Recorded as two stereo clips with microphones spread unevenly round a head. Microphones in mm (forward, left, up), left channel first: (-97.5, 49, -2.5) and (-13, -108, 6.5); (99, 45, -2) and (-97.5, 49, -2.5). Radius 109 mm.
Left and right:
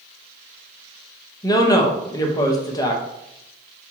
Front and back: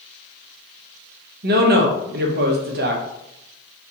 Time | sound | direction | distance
1.4 | a woman speaking | straight behind | 0.8 m